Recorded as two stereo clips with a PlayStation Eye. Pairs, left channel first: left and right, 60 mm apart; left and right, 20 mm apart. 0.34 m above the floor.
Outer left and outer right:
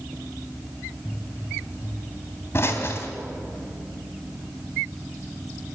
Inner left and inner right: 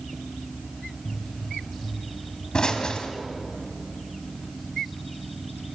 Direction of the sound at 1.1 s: 40° left (ahead or behind).